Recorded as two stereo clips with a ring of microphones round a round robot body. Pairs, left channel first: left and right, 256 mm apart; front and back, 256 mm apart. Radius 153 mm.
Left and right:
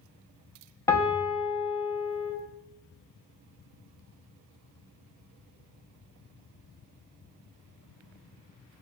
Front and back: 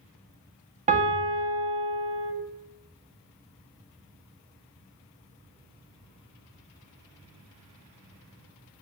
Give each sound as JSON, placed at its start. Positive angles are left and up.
{"t": 0.9, "sound": "a piano", "azimuth_deg": 160, "distance_m": 0.6}